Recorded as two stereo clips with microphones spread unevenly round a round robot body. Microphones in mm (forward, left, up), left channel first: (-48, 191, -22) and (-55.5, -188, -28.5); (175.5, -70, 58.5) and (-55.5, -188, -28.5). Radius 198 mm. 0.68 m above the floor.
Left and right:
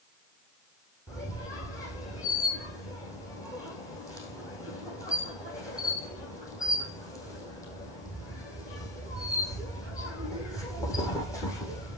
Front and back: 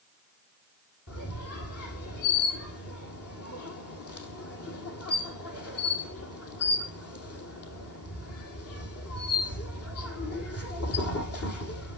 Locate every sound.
1.1 s a squeak: 5° left, 4 m